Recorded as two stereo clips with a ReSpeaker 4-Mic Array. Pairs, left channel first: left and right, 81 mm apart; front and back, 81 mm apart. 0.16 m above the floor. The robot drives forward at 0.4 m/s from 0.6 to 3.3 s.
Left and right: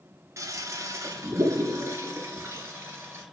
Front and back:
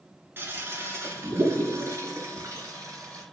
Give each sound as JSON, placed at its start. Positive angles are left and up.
{"t": 0.4, "sound": "a toilet flushing", "azimuth_deg": -125, "distance_m": 2.0}